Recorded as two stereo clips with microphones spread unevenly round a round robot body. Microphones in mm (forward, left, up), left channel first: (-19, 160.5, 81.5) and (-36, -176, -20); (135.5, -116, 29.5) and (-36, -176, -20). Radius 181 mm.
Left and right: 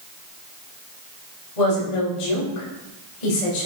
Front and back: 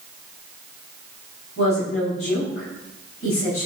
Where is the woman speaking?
80° left, 5 m.